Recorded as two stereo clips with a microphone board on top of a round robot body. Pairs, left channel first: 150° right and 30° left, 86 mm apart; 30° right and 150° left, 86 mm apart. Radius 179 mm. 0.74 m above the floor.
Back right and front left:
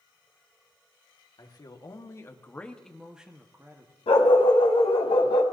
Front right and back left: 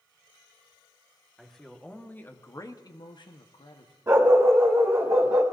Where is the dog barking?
150° right, 1.3 m.